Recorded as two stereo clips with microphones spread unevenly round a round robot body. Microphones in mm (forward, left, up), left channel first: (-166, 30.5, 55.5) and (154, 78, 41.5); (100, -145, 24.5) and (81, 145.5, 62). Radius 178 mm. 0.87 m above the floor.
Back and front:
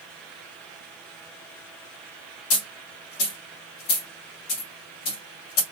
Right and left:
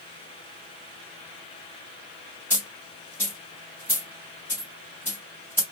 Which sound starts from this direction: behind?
A dropped coin, at 2.5 s.